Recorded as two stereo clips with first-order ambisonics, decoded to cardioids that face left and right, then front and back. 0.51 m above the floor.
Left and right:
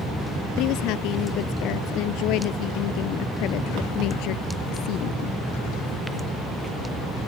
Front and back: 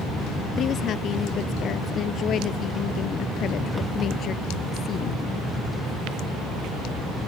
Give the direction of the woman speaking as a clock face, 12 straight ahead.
10 o'clock.